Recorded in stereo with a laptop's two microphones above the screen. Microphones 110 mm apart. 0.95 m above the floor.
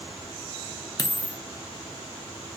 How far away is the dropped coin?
About 0.5 m.